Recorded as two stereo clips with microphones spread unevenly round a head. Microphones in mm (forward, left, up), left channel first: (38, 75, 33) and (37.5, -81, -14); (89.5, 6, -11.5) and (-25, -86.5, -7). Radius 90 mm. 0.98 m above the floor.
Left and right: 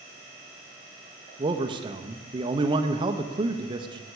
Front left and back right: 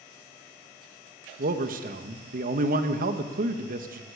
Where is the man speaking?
135° right, 1.2 m.